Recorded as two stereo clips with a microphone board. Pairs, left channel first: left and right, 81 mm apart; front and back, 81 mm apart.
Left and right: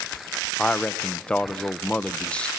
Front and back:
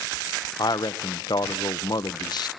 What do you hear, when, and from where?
0.6 s a man speaking: 15° left, 1.0 m